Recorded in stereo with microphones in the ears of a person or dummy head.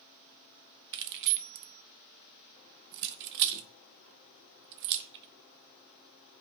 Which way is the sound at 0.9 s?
55° right (ahead or behind).